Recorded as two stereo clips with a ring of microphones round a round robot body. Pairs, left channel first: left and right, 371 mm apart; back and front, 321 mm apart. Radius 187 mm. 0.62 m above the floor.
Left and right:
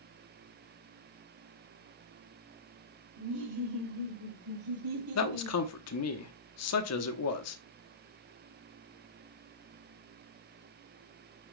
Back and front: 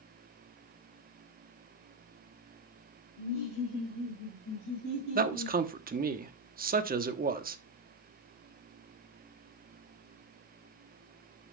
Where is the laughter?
125° right, 2 m.